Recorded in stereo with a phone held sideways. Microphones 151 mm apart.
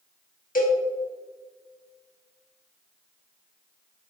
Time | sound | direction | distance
0.6 | a cowbell | 70° left (ahead or behind) | 1.3 m